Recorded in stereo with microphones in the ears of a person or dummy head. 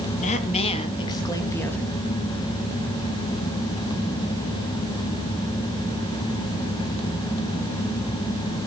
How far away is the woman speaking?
About 2.5 m.